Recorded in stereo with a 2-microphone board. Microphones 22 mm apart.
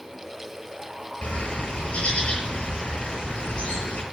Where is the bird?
80° left, 7 m.